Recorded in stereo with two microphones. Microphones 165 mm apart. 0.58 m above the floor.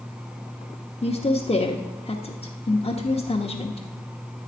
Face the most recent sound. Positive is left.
turn(degrees=35)  # may be behind; listen again after turning